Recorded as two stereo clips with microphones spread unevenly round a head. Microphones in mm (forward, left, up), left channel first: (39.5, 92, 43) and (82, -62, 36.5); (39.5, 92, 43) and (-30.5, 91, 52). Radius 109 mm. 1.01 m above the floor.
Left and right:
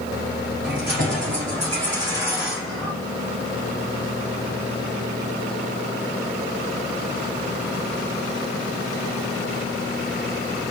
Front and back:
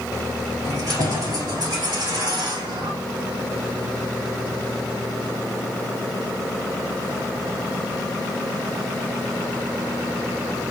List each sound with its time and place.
0.6 s keys jangling: 115° right, 2.5 m; by 2.9 s 175° right, 1.2 m